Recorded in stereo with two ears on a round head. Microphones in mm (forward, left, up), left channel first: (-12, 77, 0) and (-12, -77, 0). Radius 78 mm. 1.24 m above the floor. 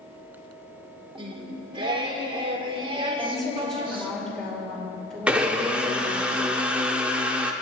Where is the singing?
30° right (ahead or behind), 1.3 m.